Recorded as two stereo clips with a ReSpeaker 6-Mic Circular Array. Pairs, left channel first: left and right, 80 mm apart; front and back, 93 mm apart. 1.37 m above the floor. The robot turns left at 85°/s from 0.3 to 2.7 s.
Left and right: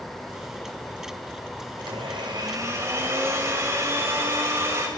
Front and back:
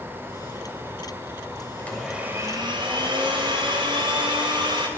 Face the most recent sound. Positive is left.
turn(degrees=-145)